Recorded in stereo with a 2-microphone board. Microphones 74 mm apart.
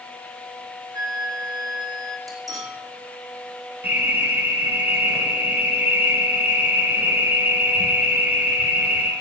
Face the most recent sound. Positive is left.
turn(degrees=-25)  # may be behind; listen again after turning